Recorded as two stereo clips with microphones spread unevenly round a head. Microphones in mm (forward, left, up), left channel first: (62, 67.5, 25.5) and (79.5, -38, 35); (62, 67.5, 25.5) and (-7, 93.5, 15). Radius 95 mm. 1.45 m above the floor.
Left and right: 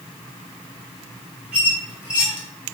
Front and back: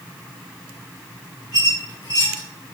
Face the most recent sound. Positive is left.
turn(degrees=0)